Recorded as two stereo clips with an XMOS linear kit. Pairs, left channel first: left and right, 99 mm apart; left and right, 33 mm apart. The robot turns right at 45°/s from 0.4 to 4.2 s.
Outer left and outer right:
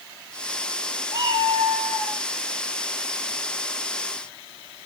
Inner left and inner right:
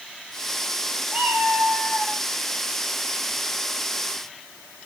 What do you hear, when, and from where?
1.1 s a cat meowing: 145° right, 5.5 m; by 2.2 s 95° right, 5.5 m